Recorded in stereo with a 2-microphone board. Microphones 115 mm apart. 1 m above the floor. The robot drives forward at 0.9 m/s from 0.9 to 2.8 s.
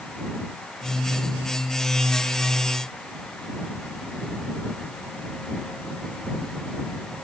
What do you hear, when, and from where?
Only background noise.